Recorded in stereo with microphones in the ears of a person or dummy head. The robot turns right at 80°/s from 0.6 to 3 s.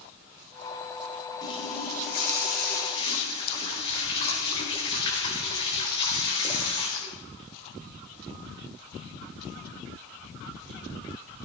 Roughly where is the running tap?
Ahead.